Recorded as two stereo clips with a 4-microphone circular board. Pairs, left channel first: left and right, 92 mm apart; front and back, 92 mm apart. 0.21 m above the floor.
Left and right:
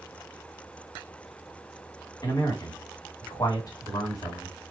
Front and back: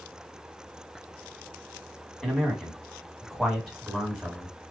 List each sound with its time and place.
2.2 s a man speaking: 90° left, 1.4 m